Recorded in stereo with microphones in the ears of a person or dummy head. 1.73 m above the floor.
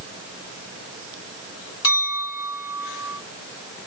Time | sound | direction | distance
1.8 | a clink | 20° left (ahead or behind) | 3 m